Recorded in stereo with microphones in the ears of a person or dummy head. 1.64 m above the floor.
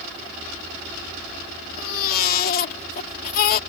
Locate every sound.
1.8 s a baby crying: 50° left (ahead or behind)